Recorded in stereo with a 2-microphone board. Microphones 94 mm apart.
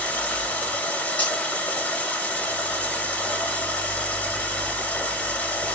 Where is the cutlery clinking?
15° left (ahead or behind), 1.7 m.